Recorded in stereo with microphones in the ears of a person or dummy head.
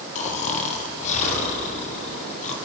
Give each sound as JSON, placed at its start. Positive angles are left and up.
{"t": 0.1, "sound": "snoring", "side_deg": 40, "distance_m": 1.2}